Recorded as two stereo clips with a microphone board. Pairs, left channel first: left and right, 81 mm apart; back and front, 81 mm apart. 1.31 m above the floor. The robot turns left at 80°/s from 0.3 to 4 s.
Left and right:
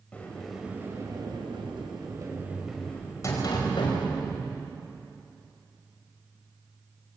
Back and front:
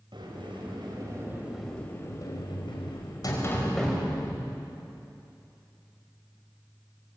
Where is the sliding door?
15° left, 5 m; by 4.7 s 80° left, 5 m.